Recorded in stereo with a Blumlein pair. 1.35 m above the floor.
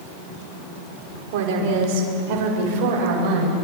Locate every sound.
1.3 s a woman speaking: 50° right, 5 m; by 3.5 s 40° right, 8.5 m